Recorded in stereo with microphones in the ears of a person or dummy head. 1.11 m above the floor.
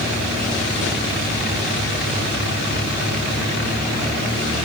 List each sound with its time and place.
Only background noise.